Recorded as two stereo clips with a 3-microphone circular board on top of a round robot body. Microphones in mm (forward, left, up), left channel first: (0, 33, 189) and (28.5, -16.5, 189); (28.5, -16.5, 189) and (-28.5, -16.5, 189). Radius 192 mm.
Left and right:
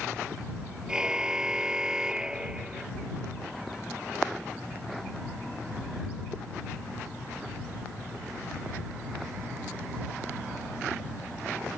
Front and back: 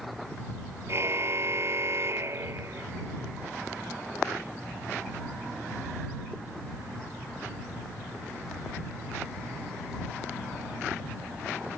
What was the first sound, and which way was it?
A car horn, 140° right.